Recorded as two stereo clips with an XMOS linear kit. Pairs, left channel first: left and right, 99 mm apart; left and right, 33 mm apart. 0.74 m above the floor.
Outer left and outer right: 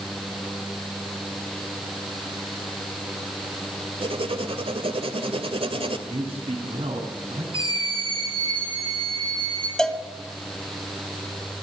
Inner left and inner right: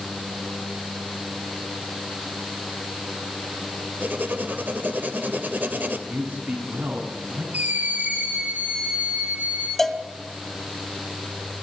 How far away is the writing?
About 2 m.